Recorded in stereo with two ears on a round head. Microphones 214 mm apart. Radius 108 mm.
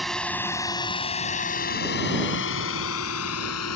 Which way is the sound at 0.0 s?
Centre (ahead or behind).